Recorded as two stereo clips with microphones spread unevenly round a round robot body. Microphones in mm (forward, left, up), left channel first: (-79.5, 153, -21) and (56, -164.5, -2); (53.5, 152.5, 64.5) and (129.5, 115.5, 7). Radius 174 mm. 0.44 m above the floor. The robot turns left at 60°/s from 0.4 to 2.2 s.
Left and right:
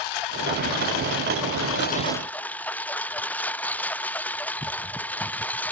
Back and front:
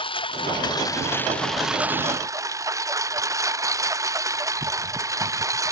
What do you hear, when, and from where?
0.0 s a lawn mower: 135° left; by 5.7 s 25° left